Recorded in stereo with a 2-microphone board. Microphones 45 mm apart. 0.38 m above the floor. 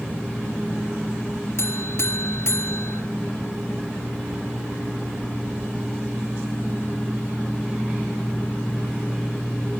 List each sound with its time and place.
1.6 s a buzzer: 65° left (ahead or behind), 1.4 m